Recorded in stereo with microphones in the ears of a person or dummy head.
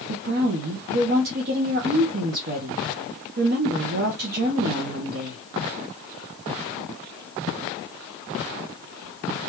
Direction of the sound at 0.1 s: 45° right (ahead or behind).